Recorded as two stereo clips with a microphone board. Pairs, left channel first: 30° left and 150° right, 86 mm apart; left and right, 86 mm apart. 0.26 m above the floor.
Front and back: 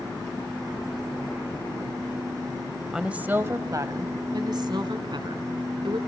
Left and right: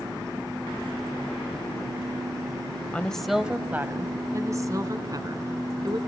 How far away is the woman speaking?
About 1.0 m.